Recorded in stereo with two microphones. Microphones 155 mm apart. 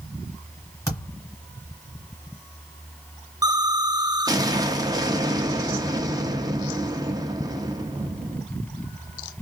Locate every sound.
0.9 s a thud: 20° left (ahead or behind), 2 m
3.4 s an explosion: 25° right (ahead or behind), 0.6 m